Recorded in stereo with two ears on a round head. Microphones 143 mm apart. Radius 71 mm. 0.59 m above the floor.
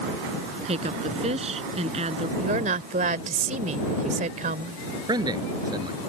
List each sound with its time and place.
0.7 s a woman speaking: 40° right (ahead or behind)
2.4 s a woman speaking: 50° right (ahead or behind)
5.1 s a man speaking: 25° right (ahead or behind)